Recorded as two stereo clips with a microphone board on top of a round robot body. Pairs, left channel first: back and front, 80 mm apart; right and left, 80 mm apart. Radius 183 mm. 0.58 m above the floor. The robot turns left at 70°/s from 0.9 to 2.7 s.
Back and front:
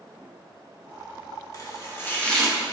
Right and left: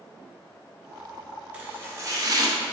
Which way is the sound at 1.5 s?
160° left.